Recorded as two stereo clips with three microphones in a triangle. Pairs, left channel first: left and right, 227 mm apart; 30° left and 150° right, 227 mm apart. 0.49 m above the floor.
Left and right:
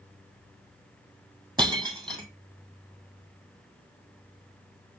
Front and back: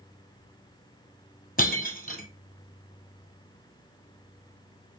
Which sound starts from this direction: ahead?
Breaking glass, at 1.6 s.